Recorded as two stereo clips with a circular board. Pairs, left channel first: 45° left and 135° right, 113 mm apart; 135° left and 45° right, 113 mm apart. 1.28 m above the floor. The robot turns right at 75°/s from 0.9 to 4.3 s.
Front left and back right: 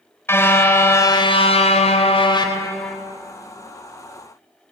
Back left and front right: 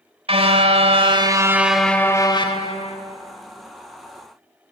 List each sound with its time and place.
0.3 s a car horn: 20° right, 2.5 m; by 3.0 s 130° left, 2.5 m